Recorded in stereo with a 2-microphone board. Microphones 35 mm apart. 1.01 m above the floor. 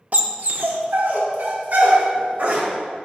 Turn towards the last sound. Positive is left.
turn(degrees=-60)  # may be behind; listen again after turning